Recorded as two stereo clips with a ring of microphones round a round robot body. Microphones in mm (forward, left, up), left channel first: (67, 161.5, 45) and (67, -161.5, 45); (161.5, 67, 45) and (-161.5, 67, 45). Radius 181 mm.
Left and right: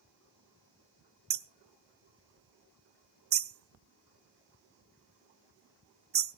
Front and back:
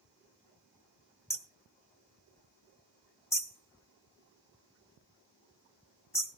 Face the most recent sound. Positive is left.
turn(degrees=-75)